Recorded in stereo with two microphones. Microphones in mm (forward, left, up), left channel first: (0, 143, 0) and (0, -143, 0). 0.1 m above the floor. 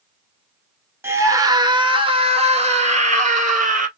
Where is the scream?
10° right (ahead or behind), 1.3 m; by 3.9 s 25° right (ahead or behind), 2.5 m.